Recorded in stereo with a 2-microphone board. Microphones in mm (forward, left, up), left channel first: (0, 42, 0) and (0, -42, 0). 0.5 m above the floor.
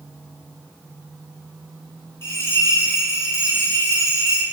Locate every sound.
2.2 s a bell: 35° left (ahead or behind), 0.7 m